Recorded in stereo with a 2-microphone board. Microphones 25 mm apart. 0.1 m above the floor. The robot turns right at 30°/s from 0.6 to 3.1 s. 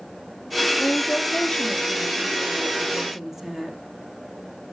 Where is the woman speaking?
125° left, 3 m; by 3.8 s 165° right, 3 m.